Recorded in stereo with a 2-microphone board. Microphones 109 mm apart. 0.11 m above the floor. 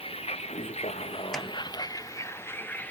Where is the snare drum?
5° left (ahead or behind).